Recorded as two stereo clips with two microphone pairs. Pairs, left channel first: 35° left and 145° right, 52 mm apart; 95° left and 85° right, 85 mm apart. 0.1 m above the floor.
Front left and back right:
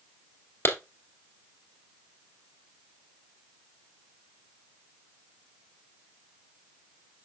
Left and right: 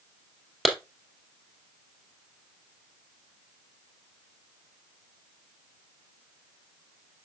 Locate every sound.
0.7 s a clap: 5° left, 1.8 m